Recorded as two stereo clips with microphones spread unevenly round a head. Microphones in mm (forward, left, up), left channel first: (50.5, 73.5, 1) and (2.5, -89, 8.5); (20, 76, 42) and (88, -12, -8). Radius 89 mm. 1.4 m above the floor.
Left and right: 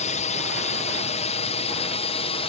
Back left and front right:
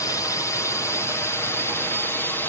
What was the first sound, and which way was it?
A drone, 50° left.